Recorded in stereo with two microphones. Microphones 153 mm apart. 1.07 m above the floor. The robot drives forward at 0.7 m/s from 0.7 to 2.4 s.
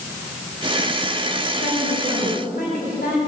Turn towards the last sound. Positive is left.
turn(degrees=70)  # may be behind; listen again after turning